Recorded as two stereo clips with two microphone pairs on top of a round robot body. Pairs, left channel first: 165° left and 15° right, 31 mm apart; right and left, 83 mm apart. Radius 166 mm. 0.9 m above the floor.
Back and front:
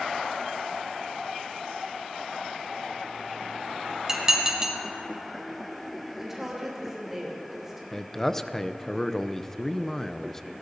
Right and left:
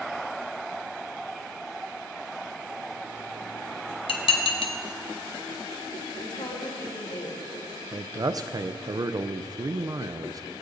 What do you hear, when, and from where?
4.1 s dishes clattering: 85° right, 1.1 m
6.2 s a woman speaking: 95° right, 3.5 m
7.9 s a man speaking: 95° left, 0.7 m